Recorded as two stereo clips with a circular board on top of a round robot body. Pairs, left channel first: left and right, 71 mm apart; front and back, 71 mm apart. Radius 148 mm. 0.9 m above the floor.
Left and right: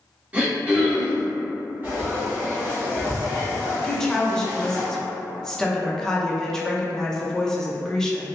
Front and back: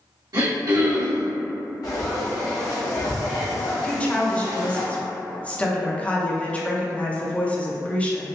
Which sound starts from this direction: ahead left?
A woman speaking, at 3.8 s.